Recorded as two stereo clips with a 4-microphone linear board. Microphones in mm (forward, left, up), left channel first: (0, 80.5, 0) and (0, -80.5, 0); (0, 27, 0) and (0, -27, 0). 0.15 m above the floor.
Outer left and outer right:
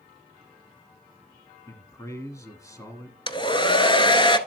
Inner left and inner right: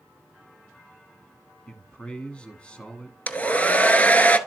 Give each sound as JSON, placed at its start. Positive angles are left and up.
{"t": 1.7, "sound": "a man speaking", "side_deg": 20, "distance_m": 1.1}
{"t": 3.3, "sound": "a hair dryer", "side_deg": 30, "distance_m": 0.7}